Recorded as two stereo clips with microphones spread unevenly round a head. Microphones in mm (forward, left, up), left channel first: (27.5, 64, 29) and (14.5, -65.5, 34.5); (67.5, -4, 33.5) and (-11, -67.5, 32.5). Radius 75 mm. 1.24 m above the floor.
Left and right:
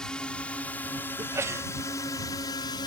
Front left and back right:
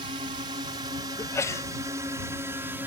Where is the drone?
170° left; by 2.9 s 145° left.